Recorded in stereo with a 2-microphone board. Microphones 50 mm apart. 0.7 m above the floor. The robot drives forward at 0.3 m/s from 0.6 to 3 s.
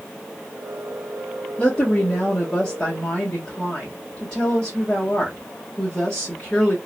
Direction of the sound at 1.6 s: 20° left (ahead or behind).